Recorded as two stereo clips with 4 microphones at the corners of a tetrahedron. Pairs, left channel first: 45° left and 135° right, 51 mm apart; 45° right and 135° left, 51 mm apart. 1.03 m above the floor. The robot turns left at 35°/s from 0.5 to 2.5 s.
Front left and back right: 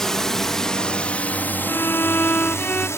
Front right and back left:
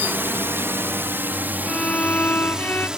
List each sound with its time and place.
0.0 s a drone: 120° left; by 3.0 s 60° left
1.7 s a violin: 20° left; by 2.9 s 10° right